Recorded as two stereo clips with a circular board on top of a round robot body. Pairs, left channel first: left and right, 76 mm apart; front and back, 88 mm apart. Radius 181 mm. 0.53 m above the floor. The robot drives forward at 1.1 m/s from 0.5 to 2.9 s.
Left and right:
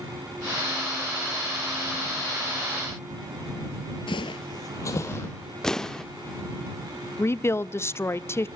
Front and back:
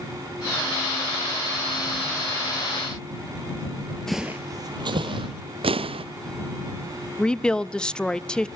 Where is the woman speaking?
75° left, 0.7 m.